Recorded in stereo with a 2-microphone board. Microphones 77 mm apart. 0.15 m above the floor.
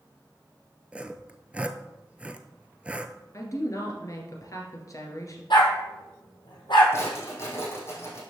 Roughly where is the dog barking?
Left.